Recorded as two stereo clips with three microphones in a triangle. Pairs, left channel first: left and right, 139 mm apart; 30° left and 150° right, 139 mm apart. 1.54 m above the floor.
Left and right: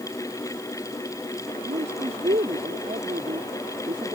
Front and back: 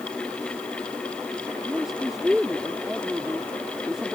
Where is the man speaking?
60° right.